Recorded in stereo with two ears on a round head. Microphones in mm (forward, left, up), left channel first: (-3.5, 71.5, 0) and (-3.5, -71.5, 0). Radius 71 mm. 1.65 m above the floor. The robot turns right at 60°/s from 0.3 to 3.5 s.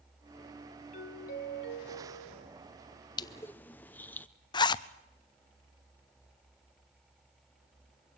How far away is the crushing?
About 0.7 m.